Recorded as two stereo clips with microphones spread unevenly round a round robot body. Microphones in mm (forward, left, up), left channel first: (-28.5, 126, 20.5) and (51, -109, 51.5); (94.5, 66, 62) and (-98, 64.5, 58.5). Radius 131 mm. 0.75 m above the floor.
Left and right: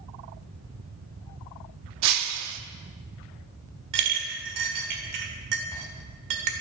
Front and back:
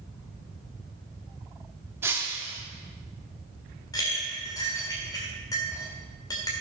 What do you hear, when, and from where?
2.0 s breaking glass: 100° right, 0.8 m
3.9 s a clink: 75° right, 1.7 m